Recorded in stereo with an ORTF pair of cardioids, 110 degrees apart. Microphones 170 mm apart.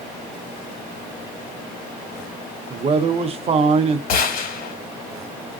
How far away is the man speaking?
About 0.7 m.